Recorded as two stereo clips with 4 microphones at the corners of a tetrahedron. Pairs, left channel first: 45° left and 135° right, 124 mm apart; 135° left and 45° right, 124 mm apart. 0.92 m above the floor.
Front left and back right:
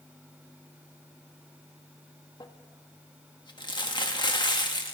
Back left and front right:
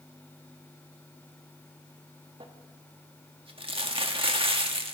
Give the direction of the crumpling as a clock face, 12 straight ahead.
12 o'clock.